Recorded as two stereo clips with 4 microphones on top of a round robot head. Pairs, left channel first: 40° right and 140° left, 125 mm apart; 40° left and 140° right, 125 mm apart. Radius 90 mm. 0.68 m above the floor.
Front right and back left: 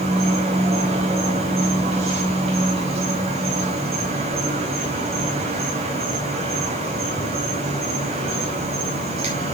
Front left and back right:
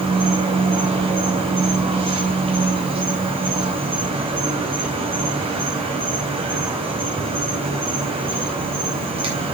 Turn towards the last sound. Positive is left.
turn(degrees=175)